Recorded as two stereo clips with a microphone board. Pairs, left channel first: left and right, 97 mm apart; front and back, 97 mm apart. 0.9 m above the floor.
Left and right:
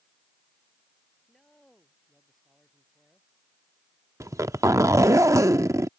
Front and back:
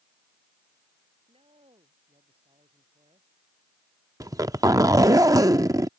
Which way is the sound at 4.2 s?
140° right.